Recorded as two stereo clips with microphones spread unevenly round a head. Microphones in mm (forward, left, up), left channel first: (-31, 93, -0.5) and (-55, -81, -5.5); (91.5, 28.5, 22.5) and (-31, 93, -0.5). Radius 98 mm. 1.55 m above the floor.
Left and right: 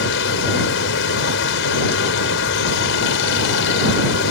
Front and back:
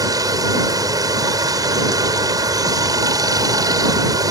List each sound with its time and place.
0.0 s running water: 85° left